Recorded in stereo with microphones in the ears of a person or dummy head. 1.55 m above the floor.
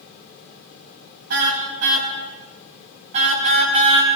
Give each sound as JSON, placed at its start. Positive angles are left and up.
{"t": 1.3, "sound": "a car horn", "side_deg": -65, "distance_m": 5.0}